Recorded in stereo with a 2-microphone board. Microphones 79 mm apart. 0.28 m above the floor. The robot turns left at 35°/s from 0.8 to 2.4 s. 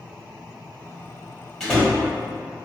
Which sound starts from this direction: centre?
A door slam, at 1.6 s.